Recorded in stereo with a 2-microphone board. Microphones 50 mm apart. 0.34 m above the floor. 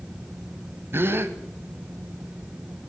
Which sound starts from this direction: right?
A gasp, at 0.9 s.